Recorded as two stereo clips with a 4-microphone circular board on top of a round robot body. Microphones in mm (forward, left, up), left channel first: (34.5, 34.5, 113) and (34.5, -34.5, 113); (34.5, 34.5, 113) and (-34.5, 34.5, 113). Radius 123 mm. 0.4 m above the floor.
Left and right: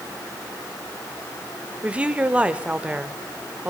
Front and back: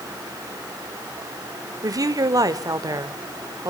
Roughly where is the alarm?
I don't hear an alarm.